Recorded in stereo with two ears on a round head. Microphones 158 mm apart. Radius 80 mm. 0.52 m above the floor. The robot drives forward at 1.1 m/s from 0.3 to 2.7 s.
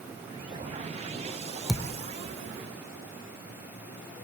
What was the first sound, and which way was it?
A thud, centre (ahead or behind).